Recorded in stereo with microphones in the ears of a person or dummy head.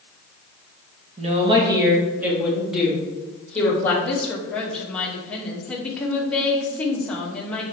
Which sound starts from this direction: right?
A woman speaking, at 1.2 s.